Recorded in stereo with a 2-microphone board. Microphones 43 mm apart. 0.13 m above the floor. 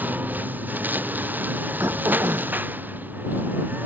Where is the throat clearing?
80° right.